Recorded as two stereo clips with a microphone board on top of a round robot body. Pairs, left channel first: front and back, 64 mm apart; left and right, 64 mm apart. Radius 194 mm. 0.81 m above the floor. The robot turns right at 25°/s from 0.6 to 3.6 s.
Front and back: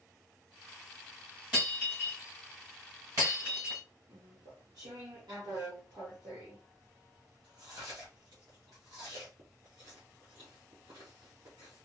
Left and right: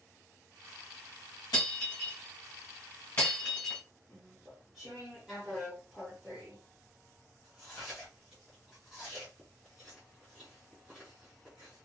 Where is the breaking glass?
105° left, 1.3 m; by 3.8 s 160° left, 1.3 m.